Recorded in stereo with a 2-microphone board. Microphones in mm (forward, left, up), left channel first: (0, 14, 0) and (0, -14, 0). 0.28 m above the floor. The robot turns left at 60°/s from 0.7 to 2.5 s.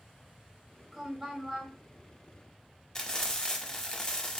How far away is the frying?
About 0.7 m.